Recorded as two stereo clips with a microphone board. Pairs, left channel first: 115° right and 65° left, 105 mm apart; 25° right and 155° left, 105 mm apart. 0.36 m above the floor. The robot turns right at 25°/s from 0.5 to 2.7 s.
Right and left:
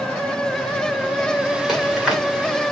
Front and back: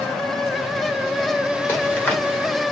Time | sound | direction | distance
1.7 | chewing | 10° right | 1.4 m